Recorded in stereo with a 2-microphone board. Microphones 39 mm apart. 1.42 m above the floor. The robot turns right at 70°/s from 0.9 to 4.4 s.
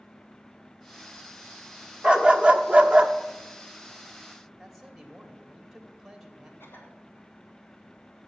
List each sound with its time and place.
2.0 s a dog barking: 15° right (ahead or behind), 1.0 m; by 3.1 s 25° right (ahead or behind), 1.0 m
4.6 s a man speaking: centre (ahead or behind), 2.5 m
6.6 s a cough: 60° left (ahead or behind), 4 m